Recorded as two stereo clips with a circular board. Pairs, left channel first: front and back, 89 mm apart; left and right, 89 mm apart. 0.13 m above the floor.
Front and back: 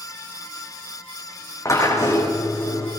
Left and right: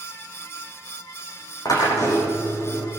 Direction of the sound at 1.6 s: 50° left.